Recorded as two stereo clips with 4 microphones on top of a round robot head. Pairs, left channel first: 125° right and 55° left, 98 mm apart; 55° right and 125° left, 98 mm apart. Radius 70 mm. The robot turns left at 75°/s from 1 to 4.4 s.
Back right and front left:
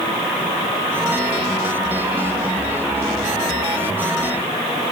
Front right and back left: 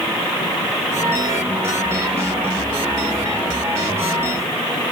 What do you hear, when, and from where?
Only background noise.